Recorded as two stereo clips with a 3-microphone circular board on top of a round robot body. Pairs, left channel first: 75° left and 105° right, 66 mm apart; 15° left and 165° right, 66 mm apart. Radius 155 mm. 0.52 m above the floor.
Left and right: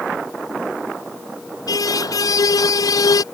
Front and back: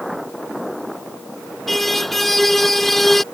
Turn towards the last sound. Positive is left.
turn(degrees=100)